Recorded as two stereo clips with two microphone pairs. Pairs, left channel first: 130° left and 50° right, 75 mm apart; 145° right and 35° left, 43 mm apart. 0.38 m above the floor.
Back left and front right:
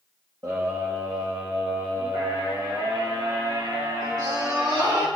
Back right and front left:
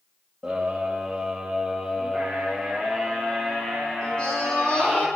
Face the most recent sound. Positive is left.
turn(degrees=-80)